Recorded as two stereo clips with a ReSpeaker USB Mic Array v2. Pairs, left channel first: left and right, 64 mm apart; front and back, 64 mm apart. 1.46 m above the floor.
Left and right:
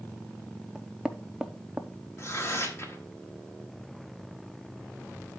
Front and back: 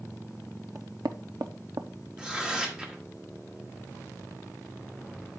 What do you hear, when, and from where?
0.8 s knocking: 165° right, 0.6 m
2.2 s tearing paper: 105° left, 1.2 m